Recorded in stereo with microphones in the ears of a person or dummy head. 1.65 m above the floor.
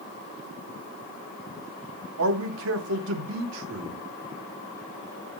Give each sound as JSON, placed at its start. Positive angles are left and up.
{"t": 2.2, "sound": "a man speaking", "side_deg": -70, "distance_m": 2.0}